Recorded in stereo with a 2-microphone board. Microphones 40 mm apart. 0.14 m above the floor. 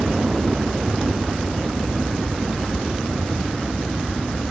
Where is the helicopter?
25° right (ahead or behind).